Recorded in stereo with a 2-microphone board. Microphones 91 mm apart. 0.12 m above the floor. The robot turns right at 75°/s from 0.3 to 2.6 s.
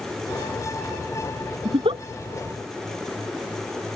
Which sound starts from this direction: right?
A giggle, at 1.6 s.